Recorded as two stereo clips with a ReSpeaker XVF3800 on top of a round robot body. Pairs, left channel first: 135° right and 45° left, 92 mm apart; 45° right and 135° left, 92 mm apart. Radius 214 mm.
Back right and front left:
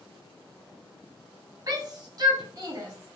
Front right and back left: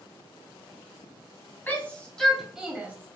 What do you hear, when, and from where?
1.7 s a shout: 15° left, 1.3 m; by 3.2 s 85° left, 1.2 m